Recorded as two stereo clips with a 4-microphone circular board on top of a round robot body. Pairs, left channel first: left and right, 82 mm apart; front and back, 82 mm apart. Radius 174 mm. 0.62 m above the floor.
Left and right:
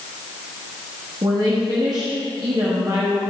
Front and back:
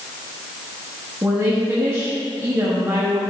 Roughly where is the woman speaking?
Behind right.